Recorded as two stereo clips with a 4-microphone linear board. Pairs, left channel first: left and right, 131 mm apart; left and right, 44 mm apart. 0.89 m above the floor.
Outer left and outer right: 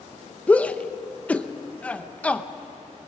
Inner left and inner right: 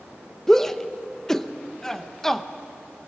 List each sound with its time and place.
0.5 s a shout: 10° left (ahead or behind), 0.8 m